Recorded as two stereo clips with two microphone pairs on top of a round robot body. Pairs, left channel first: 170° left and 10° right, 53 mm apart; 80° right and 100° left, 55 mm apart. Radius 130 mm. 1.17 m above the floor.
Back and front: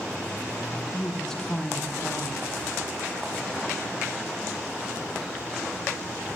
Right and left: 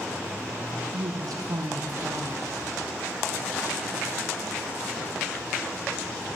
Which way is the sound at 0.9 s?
90° left.